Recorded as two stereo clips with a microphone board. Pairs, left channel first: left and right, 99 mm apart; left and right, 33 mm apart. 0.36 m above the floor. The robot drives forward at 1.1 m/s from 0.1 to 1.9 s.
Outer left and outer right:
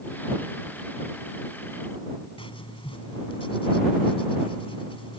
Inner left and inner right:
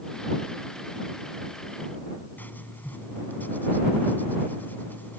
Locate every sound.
2.4 s writing: 70° left (ahead or behind)